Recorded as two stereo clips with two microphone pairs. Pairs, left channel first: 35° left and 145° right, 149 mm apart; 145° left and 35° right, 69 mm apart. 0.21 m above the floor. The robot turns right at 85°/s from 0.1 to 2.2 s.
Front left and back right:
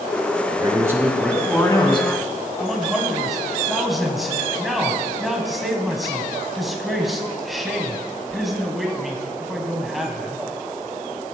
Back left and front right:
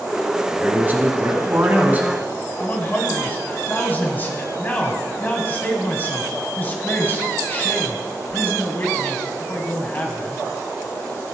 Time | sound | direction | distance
0.5 | a man speaking | 110° right | 1.4 m
2.6 | a man speaking | 125° left | 1.6 m